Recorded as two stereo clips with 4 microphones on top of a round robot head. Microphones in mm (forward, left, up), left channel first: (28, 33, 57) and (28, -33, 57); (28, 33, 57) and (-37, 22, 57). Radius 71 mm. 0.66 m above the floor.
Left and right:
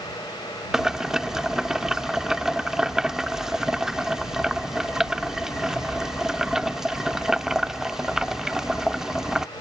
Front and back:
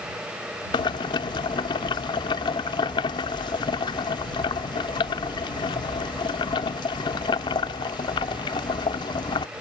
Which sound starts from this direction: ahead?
Boiling, at 0.7 s.